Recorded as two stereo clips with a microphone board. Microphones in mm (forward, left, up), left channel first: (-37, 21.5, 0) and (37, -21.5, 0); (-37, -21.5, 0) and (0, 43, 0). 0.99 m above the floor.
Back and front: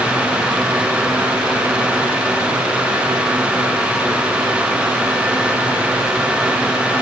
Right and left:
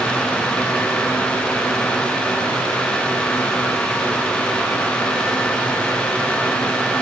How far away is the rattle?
I don't hear a rattle.